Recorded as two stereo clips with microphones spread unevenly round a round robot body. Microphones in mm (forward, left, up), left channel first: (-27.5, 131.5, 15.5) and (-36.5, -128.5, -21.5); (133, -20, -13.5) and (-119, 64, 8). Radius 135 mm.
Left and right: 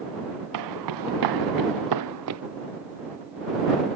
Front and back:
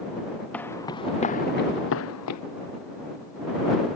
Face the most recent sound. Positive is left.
turn(degrees=-50)